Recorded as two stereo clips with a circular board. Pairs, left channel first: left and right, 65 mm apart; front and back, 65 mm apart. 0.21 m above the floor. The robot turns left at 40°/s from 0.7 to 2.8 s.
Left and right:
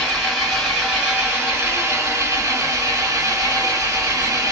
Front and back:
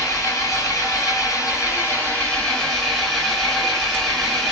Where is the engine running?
5° right, 2.5 m; by 4.5 s 90° right, 2.5 m.